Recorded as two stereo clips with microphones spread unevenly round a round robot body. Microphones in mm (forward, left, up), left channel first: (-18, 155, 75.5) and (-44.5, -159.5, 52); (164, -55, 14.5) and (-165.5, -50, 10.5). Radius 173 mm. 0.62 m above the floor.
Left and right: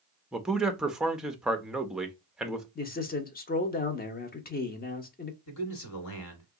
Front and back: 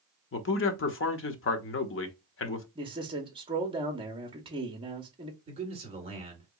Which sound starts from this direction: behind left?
A man speaking, at 2.8 s.